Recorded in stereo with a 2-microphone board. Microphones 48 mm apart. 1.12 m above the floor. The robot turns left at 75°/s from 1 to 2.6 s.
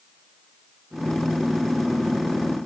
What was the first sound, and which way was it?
Only background noise.